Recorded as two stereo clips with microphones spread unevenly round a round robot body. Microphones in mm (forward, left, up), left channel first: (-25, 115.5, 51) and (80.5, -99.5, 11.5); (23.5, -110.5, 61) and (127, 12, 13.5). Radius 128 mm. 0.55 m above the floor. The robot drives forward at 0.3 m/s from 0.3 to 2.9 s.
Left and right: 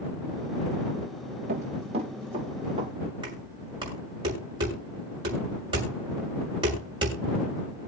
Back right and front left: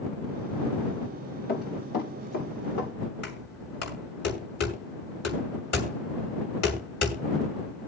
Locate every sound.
1.5 s running footsteps: 125° right, 5 m; by 2.9 s 135° right, 6.5 m
3.2 s knocking: 135° right, 6.5 m